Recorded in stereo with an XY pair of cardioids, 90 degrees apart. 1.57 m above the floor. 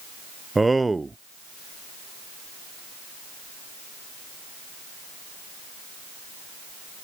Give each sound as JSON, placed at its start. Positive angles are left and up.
{"t": 0.6, "sound": "a man speaking", "azimuth_deg": -20}